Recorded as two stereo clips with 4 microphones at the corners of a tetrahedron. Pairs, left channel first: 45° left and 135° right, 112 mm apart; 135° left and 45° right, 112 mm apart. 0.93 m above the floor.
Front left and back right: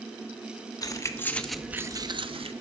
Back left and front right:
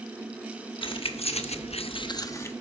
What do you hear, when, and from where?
0.8 s keys jangling: 100° left, 1.0 m; by 2.5 s 160° right, 0.9 m